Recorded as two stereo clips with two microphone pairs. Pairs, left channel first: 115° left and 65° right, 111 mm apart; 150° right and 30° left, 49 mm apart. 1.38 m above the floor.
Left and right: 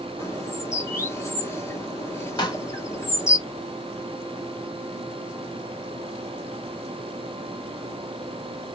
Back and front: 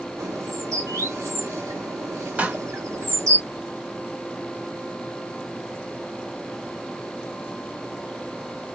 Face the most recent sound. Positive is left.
turn(degrees=75)